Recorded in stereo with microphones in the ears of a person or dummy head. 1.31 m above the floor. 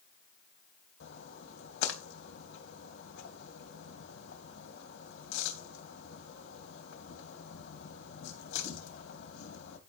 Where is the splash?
65° left (ahead or behind), 3.5 m.